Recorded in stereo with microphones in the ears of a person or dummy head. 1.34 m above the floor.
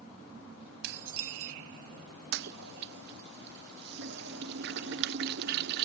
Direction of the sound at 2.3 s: 55° right (ahead or behind).